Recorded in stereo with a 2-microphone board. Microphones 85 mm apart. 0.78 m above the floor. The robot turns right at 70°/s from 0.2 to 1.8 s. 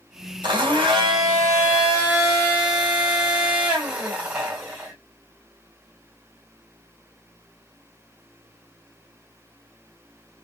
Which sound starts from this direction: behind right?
A blender, at 0.4 s.